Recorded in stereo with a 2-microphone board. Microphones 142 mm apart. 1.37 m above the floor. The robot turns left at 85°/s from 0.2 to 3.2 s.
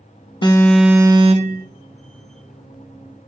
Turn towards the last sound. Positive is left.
turn(degrees=155)